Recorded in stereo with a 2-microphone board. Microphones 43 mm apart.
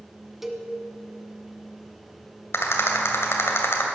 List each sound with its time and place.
0.4 s a cowbell: 5° right (ahead or behind), 1.2 m
2.5 s a rattle: 80° left, 2 m